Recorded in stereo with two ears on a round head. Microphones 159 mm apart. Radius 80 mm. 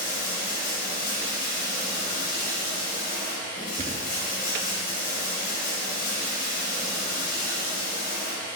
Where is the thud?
30° right (ahead or behind), 1.0 m.